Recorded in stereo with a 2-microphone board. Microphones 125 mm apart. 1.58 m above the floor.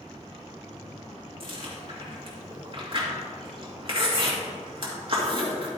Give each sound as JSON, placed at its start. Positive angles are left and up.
{"t": 1.4, "sound": "chewing", "side_deg": -45, "distance_m": 2.0}